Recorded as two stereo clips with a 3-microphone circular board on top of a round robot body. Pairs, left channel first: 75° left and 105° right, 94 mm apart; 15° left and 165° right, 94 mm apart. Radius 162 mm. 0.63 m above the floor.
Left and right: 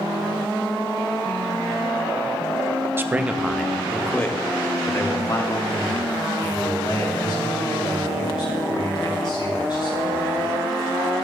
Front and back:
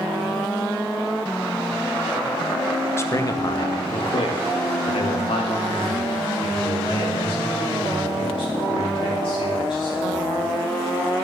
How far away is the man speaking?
About 0.9 m.